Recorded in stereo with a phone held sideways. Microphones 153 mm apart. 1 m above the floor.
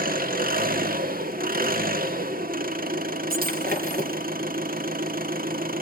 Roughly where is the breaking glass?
Right.